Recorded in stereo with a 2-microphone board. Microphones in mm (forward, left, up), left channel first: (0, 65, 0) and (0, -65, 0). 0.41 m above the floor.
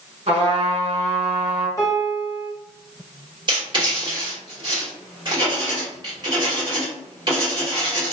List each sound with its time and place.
0.3 s a trumpet: 50° right (ahead or behind), 1.4 m
1.8 s a piano: 25° left (ahead or behind), 1.1 m
3.5 s writing: 35° right (ahead or behind), 1.3 m